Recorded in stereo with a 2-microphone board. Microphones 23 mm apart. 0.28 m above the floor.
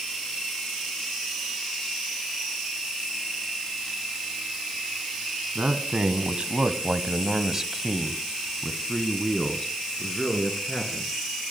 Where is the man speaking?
60° right (ahead or behind), 2.0 m; by 11.1 s 35° left (ahead or behind), 3.5 m.